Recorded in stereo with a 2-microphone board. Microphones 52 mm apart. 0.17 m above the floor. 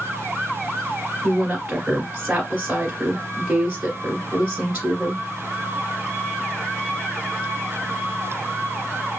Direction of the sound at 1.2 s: 30° right (ahead or behind).